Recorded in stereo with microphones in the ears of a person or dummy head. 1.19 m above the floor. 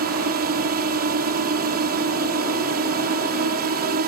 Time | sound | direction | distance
0.0 | a drone | 50° right (ahead or behind) | ?